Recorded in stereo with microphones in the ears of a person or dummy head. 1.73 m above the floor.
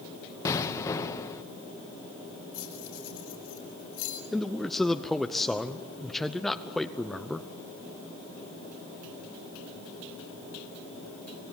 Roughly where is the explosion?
Centre.